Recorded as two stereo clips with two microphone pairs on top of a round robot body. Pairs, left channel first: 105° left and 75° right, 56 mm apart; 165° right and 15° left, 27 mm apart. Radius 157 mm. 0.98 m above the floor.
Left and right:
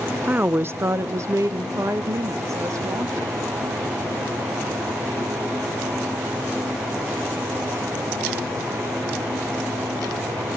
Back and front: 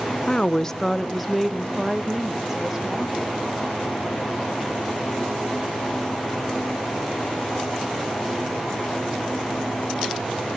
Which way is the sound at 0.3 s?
125° right.